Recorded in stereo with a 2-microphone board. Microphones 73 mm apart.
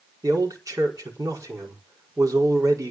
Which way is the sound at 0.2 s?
50° right (ahead or behind).